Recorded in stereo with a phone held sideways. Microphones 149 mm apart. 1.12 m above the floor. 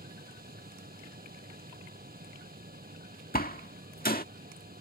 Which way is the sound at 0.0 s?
85° right.